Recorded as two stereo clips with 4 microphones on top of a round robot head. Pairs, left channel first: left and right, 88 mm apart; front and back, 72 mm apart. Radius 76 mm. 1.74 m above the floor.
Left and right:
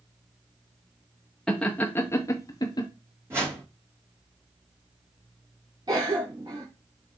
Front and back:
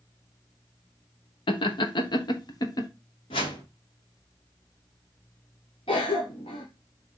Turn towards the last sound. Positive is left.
turn(degrees=-30)